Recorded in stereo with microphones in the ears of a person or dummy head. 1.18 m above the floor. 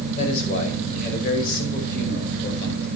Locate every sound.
0.2 s a man speaking: 45° left (ahead or behind), 6 m; by 2.9 s 60° left (ahead or behind), 6.5 m